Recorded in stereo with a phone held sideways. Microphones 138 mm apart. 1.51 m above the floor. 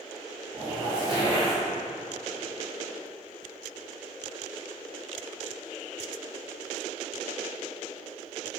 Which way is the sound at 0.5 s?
35° right (ahead or behind).